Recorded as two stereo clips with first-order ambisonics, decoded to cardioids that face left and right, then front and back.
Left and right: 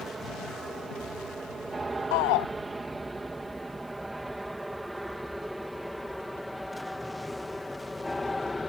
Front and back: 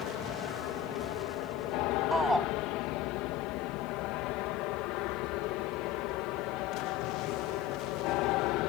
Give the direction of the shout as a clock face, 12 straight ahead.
9 o'clock.